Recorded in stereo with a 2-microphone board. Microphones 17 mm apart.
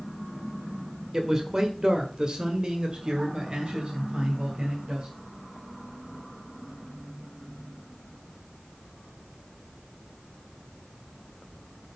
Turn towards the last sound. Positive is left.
turn(degrees=-65)  # may be behind; listen again after turning